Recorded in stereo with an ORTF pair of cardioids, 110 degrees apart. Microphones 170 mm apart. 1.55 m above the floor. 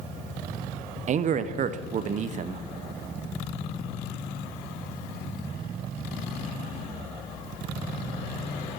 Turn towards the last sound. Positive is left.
turn(degrees=-50)